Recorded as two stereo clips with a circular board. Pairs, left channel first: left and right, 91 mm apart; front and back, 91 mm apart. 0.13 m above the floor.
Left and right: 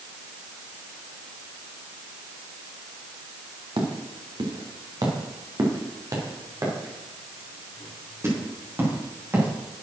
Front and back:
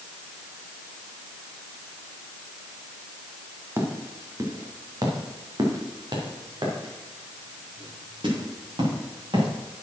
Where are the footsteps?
115° right, 2.5 m; by 9.5 s 155° right, 5.5 m.